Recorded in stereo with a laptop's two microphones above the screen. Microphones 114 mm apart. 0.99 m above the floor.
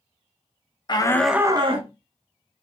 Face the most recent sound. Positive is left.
turn(degrees=-60)  # may be behind; listen again after turning